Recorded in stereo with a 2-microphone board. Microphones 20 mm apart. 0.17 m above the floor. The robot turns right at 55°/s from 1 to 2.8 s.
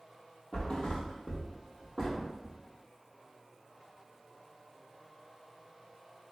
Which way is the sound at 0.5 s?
75° left (ahead or behind).